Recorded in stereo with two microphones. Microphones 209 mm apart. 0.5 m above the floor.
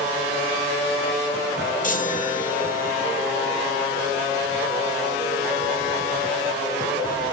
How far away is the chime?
About 1.3 m.